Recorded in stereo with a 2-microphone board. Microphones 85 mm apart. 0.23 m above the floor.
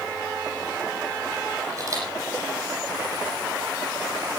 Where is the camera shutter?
40° right (ahead or behind), 9 m.